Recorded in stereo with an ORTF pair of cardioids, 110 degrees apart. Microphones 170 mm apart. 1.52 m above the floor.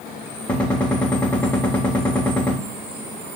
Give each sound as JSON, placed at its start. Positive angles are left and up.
{"t": 0.5, "sound": "a gunshot", "azimuth_deg": 5, "distance_m": 0.9}